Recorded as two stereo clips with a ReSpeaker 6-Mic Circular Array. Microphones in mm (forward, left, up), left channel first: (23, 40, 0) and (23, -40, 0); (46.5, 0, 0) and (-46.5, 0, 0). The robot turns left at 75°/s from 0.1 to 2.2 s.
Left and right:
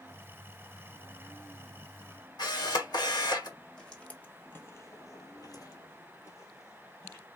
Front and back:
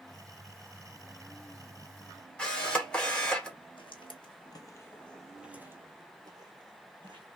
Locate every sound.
2.4 s a camera shutter: 80° left, 1.5 m
3.8 s footsteps: 10° left, 1.4 m; by 7.2 s 145° left, 2 m